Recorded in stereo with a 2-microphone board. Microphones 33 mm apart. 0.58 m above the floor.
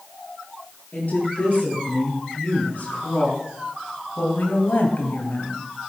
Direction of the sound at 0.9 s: 50° left (ahead or behind).